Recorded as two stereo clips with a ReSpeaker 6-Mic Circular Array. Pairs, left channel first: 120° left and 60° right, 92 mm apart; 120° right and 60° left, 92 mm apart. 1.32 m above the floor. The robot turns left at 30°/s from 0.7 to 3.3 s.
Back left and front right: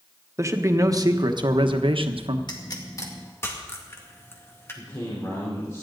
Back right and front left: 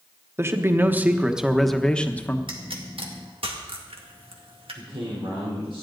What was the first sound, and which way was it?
A man speaking, 5° right.